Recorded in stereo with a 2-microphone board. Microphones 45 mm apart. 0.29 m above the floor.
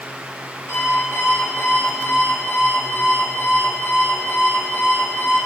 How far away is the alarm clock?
About 7 m.